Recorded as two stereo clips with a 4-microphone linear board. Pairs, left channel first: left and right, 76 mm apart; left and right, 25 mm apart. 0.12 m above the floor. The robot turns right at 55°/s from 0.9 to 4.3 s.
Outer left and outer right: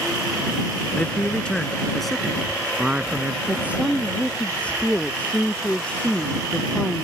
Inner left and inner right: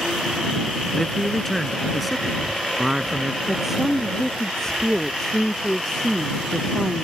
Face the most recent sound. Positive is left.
turn(degrees=15)